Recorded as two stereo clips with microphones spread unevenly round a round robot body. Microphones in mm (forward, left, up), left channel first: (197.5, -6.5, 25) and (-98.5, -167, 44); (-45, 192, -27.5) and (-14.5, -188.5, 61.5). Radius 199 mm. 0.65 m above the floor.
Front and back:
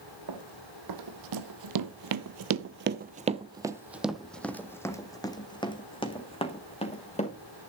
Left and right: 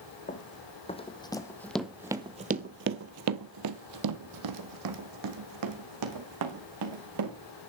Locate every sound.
0.3 s running footsteps: 170° left, 1.7 m; by 7.4 s 45° right, 3 m